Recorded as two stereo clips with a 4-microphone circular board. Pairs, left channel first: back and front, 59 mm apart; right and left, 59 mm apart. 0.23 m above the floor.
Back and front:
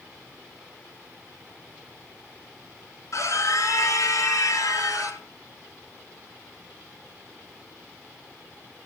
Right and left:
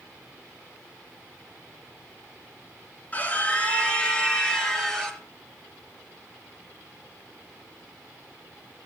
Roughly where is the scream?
Behind right.